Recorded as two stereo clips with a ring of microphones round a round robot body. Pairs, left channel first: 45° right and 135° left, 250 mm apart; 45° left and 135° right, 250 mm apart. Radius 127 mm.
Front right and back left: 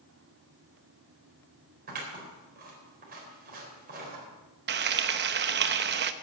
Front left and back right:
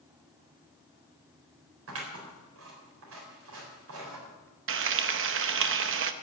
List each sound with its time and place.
1.9 s scissors: 170° right, 4 m
4.7 s frying: 175° right, 0.8 m